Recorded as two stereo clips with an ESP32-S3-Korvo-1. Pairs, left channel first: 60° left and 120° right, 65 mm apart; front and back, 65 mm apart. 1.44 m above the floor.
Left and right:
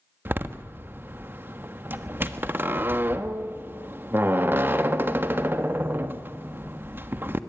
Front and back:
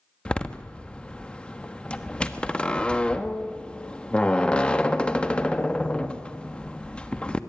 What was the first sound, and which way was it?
A door slam, 70° right.